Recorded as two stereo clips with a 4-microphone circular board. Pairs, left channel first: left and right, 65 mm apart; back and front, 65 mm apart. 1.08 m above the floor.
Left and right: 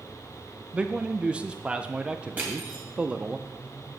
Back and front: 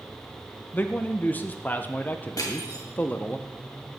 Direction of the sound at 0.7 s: 145° right.